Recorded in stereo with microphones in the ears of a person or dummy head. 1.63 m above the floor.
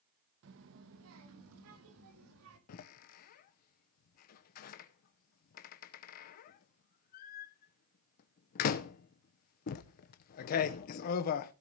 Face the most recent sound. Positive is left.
turn(degrees=45)  # may be behind; listen again after turning